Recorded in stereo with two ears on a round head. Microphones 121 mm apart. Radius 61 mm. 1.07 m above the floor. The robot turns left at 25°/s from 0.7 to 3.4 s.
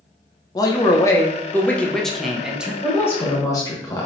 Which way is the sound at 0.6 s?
40° left.